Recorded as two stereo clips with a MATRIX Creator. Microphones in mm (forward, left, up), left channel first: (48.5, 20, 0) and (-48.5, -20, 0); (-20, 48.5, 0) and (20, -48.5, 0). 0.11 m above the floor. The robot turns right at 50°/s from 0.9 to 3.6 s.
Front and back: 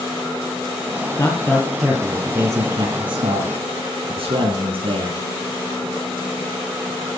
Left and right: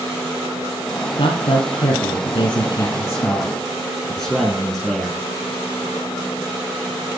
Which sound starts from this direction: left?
A man speaking, at 1.2 s.